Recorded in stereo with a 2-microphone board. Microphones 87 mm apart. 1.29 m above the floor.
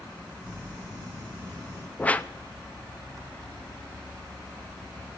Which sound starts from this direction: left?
Crumpling, at 0.4 s.